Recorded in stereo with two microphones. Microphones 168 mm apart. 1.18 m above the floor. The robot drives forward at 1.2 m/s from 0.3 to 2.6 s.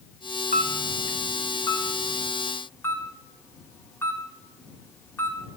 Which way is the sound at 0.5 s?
50° left (ahead or behind).